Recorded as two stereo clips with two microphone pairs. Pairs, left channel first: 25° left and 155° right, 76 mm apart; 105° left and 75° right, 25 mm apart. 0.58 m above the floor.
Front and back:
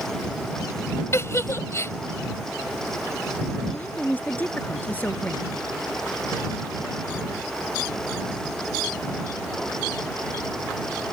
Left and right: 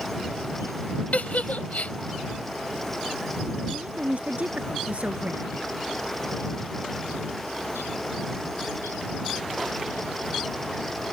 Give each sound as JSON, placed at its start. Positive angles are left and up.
{"t": 1.1, "sound": "a giggle", "azimuth_deg": 80}
{"t": 3.7, "sound": "a woman speaking", "azimuth_deg": -45}